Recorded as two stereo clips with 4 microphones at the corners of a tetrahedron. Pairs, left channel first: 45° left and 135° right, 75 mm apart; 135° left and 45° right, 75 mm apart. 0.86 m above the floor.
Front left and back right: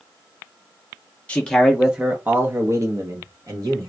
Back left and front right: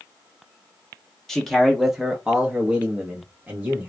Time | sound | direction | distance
1.3 | a man speaking | 65° left | 0.7 m